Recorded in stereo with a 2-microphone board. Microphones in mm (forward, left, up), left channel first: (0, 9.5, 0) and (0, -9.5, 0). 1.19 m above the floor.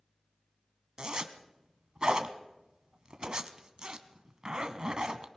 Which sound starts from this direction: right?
A zipper, at 1.0 s.